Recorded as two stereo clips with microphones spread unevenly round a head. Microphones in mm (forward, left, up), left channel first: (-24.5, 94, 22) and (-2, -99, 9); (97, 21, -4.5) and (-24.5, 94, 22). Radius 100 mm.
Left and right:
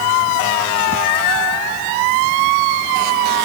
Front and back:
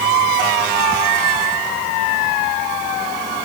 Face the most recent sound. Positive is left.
No sound to turn to.